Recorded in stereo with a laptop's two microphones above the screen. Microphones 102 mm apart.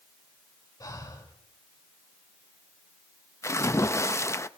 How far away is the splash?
About 0.6 m.